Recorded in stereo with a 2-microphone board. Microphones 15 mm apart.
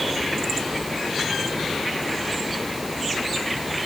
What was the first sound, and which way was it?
Only background noise.